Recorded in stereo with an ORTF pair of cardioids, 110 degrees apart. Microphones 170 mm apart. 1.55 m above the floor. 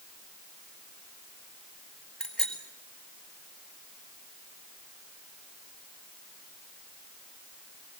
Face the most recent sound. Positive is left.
turn(degrees=5)